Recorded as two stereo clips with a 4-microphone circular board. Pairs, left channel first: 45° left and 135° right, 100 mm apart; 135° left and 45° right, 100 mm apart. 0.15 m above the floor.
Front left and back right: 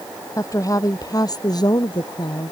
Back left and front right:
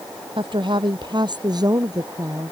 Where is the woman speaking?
10° right; by 2.5 s 10° left.